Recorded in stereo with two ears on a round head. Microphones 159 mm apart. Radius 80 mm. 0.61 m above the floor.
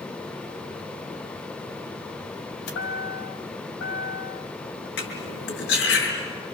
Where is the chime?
75° left (ahead or behind), 4 m.